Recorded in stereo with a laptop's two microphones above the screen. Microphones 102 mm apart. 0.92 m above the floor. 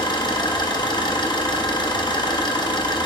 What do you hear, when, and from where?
0.0 s an engine running: 40° left (ahead or behind), 0.9 m